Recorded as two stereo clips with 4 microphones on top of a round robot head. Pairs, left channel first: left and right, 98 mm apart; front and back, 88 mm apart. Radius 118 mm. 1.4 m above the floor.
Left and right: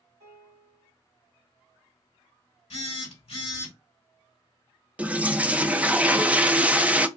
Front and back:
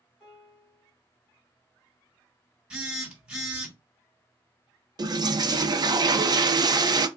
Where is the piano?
85° right, 2 m.